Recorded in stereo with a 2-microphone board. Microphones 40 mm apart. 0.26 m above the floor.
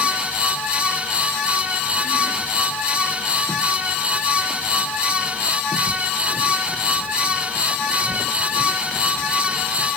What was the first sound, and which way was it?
Only background noise.